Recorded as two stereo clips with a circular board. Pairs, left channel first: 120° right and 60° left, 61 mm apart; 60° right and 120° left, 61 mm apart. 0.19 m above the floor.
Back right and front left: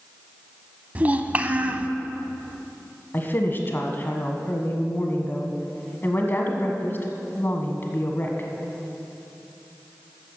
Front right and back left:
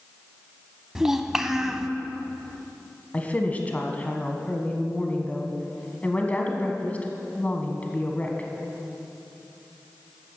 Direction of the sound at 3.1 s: 105° right.